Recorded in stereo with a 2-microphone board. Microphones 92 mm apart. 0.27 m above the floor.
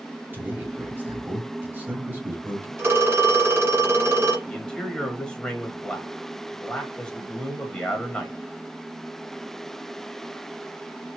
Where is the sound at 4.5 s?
10° left (ahead or behind), 1.3 m.